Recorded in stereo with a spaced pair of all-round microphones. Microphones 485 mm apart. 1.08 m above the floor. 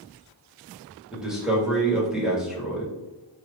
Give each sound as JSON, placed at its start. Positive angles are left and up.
{"t": 1.1, "sound": "a man speaking", "side_deg": 0, "distance_m": 1.4}